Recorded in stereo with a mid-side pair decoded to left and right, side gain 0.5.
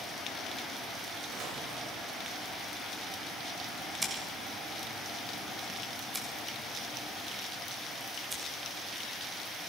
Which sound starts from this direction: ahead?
Scissors, at 4.0 s.